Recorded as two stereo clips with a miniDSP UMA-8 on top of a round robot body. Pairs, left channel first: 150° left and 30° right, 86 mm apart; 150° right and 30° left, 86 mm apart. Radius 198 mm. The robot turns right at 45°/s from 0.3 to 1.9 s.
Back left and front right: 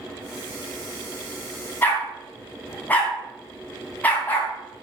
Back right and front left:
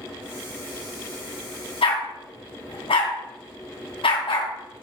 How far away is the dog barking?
About 2.5 m.